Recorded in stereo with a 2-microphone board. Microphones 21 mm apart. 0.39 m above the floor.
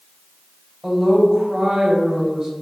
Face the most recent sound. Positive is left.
turn(degrees=-20)  # may be behind; listen again after turning